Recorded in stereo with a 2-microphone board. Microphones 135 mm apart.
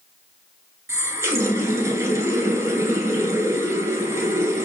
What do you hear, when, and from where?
0.9 s a running tap: 20° right (ahead or behind), 0.9 m